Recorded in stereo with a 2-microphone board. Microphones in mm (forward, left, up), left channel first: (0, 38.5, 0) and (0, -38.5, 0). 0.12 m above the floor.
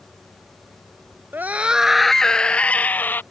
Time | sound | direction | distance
1.3 | a scream | 25° right (ahead or behind) | ?